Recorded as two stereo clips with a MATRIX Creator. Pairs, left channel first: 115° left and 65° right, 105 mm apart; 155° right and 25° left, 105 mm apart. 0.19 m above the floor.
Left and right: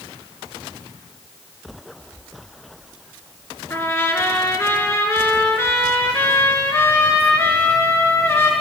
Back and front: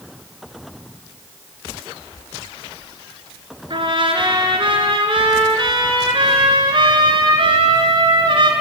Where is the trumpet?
50° left, 3 m.